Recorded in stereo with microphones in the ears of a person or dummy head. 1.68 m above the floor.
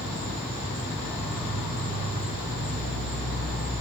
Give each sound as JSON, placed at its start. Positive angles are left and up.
{"t": 0.0, "sound": "an insect", "side_deg": -15, "distance_m": 1.9}